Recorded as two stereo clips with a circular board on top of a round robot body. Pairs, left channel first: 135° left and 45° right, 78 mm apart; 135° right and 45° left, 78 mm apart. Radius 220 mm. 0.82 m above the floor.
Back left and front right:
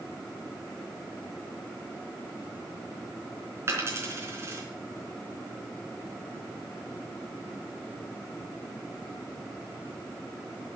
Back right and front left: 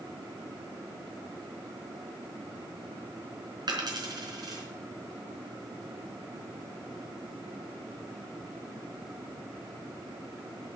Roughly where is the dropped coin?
Ahead.